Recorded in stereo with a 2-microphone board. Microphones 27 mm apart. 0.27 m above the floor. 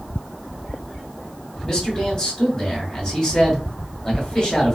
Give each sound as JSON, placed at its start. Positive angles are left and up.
{"t": 1.6, "sound": "a man speaking", "side_deg": 25, "distance_m": 2.0}